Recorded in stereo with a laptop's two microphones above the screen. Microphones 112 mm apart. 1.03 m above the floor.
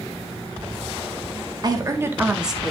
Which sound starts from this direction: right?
A woman speaking, at 1.6 s.